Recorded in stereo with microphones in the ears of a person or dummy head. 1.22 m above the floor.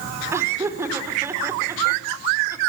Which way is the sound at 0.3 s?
15° right (ahead or behind).